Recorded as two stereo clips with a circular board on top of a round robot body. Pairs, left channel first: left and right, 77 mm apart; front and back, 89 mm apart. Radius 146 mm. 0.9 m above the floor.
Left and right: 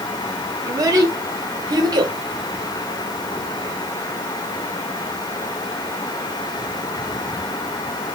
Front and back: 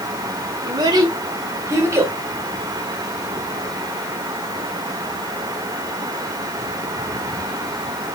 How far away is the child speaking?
About 3 m.